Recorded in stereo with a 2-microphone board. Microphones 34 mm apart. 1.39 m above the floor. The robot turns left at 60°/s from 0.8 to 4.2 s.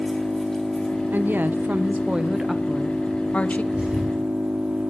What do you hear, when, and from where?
0.0 s an engine running: 160° left, 2 m; by 4.9 s 45° right, 2 m
1.1 s a woman speaking: 80° right, 0.6 m; by 3.6 s 125° left, 0.6 m
3.7 s a thud: 40° right (ahead or behind), 2 m; by 4.2 s 20° right (ahead or behind), 2 m